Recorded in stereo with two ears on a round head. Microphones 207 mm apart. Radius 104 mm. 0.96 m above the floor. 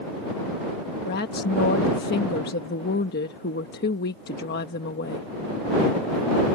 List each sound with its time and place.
1.1 s a woman speaking: 45° left (ahead or behind)